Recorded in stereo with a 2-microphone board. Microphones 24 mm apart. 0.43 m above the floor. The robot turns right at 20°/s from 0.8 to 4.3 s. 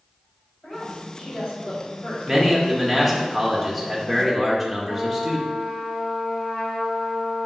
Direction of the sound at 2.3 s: 5° right (ahead or behind).